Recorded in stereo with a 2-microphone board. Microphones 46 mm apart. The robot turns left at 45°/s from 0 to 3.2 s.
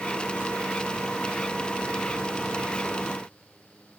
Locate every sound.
Only background noise.